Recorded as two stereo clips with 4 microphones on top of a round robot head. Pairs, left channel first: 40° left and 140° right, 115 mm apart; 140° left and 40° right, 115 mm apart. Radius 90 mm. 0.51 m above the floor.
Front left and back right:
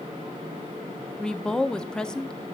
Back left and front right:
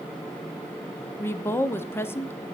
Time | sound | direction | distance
1.2 | a woman speaking | 110° left | 0.7 m